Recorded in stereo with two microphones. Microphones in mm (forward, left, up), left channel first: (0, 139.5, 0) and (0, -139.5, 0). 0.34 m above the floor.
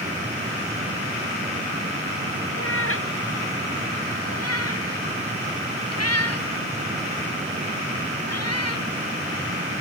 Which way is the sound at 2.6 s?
50° left (ahead or behind).